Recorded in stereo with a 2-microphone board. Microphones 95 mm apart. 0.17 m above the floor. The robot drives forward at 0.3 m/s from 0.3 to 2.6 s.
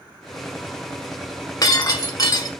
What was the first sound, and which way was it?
Breaking glass, 45° left (ahead or behind).